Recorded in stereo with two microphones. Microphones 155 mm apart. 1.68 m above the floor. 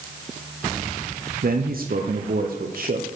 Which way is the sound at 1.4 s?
70° right (ahead or behind).